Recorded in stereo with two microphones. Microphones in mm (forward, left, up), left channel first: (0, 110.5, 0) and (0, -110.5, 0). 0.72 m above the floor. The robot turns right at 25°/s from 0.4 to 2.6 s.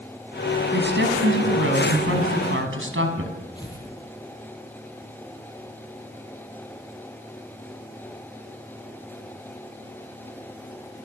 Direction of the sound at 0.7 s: 125° right.